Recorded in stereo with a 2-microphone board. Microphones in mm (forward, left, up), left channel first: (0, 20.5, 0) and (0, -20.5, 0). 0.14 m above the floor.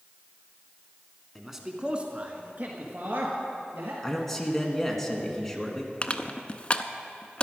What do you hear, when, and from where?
1.4 s a man speaking: centre (ahead or behind), 1.3 m; by 3.9 s 65° right (ahead or behind), 3 m
4.0 s a man speaking: 5° left (ahead or behind), 1.7 m
6.0 s crushing: 30° left (ahead or behind), 0.6 m